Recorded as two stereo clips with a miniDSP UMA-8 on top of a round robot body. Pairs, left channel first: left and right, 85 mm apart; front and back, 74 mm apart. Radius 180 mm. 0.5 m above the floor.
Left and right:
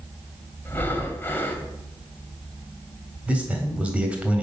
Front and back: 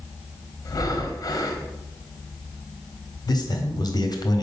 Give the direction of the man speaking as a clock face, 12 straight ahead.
1 o'clock.